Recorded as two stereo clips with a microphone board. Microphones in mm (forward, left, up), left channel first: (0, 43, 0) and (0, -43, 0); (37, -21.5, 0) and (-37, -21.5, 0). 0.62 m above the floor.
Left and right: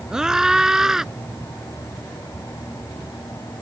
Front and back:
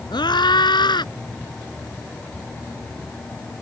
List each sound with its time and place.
0.1 s a scream: 5° right